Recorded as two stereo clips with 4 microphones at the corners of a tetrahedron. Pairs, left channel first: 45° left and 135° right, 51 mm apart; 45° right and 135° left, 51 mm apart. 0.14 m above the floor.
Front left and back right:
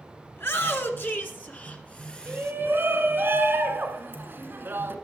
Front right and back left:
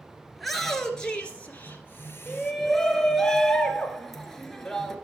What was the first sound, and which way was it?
A shout, 45° left.